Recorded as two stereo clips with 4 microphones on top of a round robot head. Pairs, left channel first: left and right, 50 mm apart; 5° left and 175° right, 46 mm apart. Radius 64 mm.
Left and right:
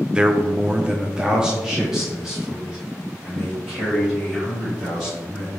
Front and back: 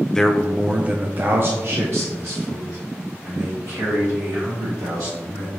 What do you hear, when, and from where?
0.1 s a man speaking: 45° right, 0.5 m; by 5.5 s 175° right, 3 m